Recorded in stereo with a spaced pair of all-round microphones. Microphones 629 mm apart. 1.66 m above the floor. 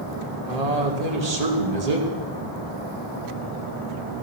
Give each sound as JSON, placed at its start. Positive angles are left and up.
{"t": 0.5, "sound": "a man speaking", "side_deg": -80, "distance_m": 2.0}